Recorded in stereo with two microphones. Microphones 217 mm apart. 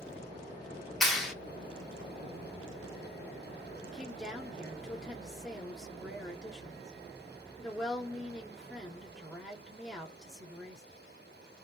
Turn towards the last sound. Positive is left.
turn(degrees=0)  # may be behind; listen again after turning